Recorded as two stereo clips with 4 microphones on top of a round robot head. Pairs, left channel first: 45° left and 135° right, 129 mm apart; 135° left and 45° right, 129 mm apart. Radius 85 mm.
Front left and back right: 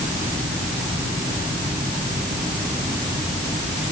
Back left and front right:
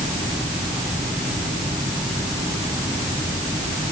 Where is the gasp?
No gasp in this recording.